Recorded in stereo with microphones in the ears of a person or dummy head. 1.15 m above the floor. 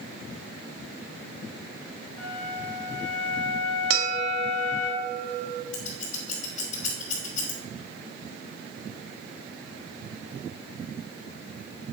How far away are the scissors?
About 2.5 m.